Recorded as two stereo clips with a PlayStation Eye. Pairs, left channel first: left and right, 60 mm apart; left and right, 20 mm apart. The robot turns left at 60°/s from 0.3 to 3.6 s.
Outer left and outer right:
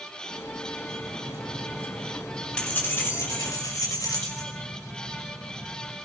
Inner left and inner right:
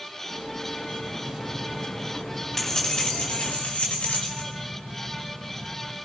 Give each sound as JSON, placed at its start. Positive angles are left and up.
{"t": 0.9, "sound": "keys jangling", "azimuth_deg": -95, "distance_m": 5.5}